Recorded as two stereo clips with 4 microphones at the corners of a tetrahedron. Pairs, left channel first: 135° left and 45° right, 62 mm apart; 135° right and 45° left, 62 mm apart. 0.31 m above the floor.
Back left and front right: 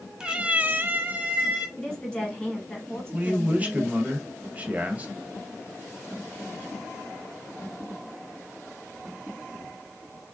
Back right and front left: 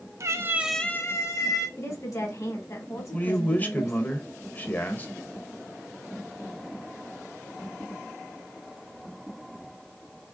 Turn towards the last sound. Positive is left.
turn(degrees=-95)